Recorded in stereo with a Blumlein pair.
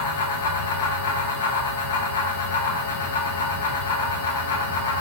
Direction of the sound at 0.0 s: 60° left.